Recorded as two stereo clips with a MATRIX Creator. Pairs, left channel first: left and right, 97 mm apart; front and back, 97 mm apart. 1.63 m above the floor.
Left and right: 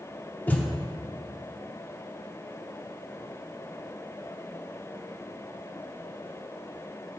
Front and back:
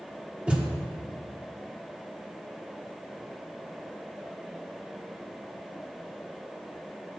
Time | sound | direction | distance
0.5 | a thud | 125° left | 1.2 m